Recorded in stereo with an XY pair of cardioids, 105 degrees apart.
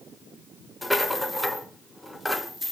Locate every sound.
0.8 s a rattle: 5° left, 0.7 m